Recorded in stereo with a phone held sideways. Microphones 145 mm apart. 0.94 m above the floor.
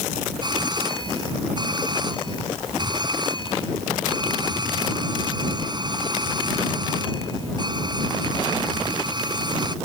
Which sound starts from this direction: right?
A doorbell, at 0.4 s.